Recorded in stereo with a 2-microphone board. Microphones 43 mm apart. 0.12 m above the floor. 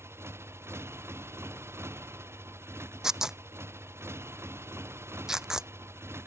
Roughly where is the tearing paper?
Centre.